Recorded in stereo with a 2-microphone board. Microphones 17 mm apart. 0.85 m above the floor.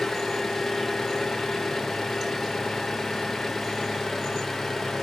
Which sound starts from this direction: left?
An engine running, at 0.0 s.